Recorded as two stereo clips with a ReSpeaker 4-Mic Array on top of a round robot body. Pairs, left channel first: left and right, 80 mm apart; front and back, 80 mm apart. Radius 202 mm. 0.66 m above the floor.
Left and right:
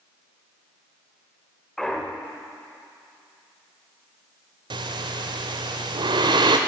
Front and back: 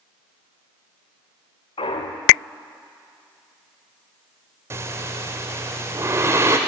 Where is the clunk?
5° left, 0.6 m.